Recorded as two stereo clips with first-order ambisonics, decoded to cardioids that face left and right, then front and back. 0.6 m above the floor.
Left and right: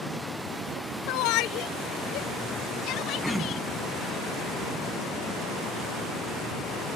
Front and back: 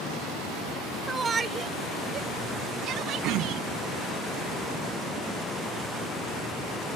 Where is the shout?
100° left; by 3.6 s 135° left.